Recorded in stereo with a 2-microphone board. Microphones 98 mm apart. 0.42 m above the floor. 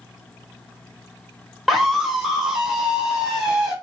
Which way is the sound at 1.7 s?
Centre (ahead or behind).